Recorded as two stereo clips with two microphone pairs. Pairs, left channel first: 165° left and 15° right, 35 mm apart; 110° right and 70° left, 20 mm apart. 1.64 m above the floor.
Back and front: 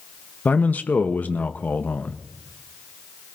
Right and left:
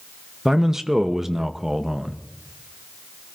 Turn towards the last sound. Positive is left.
turn(degrees=135)